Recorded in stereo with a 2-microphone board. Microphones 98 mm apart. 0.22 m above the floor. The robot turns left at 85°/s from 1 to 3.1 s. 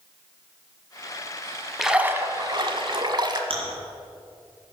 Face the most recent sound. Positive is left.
turn(degrees=-65)  # may be behind; listen again after turning